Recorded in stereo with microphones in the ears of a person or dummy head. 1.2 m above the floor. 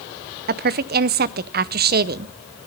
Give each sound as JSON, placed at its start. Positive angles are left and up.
{"t": 0.5, "sound": "a woman speaking", "side_deg": -45, "distance_m": 0.7}